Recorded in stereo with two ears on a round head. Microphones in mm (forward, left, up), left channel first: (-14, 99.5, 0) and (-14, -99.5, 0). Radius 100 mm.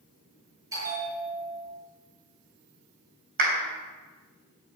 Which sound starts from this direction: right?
A clap, at 3.4 s.